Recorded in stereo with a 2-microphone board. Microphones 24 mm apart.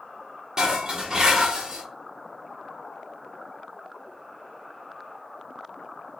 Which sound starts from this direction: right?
Dishes clattering, at 0.6 s.